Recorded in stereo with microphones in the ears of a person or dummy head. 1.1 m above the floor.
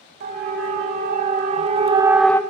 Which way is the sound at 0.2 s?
50° right (ahead or behind).